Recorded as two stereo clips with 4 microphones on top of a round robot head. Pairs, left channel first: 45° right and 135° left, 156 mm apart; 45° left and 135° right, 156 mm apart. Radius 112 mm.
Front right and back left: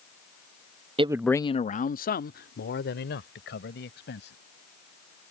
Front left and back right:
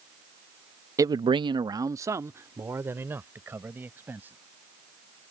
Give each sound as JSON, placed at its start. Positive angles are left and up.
{"t": 1.0, "sound": "a man speaking", "azimuth_deg": 165}